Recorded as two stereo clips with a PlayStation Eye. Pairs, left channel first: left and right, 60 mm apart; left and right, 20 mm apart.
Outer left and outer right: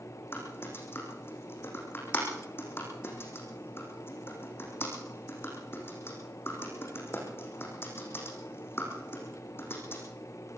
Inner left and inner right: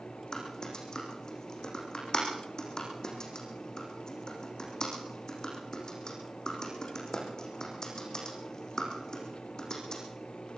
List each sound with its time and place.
0.3 s typing on a keyboard: 40° left (ahead or behind), 6.5 m